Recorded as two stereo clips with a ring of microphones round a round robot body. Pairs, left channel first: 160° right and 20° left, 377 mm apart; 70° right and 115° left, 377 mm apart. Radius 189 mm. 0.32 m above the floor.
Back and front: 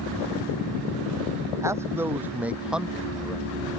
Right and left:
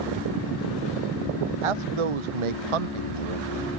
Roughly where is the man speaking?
Left.